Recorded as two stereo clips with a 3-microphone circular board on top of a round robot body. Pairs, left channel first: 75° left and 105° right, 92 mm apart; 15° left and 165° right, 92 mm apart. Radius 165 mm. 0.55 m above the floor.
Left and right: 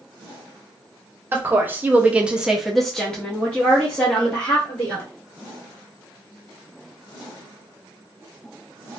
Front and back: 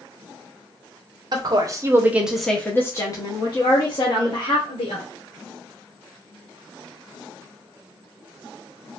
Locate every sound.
1.3 s a woman speaking: 160° right, 0.9 m; by 5.0 s 5° left, 1.7 m